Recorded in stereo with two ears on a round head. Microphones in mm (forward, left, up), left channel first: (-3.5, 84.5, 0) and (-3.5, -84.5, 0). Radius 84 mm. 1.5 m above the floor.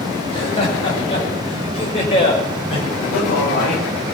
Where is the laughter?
35° left (ahead or behind), 7.5 m; by 2.9 s 30° left (ahead or behind), 6 m.